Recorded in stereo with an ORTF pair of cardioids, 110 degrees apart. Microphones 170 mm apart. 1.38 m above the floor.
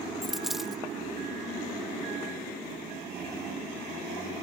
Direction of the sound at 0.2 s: Straight ahead.